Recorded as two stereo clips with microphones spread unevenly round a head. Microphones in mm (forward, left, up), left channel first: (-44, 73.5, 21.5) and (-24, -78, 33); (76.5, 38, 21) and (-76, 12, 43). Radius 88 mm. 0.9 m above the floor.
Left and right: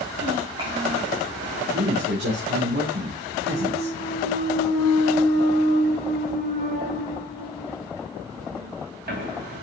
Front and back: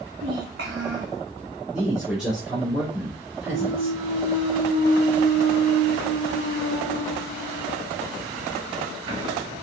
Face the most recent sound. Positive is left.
turn(degrees=-105)